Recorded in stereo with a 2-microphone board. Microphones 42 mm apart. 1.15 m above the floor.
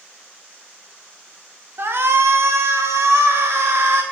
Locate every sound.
1.8 s a shout: 60° right (ahead or behind), 0.8 m; by 4.0 s 65° right (ahead or behind), 1.5 m